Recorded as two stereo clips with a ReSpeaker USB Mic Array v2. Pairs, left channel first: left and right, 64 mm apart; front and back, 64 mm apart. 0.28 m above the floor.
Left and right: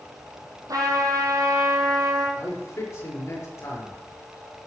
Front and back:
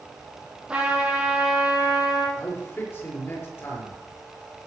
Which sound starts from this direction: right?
A trumpet, at 0.7 s.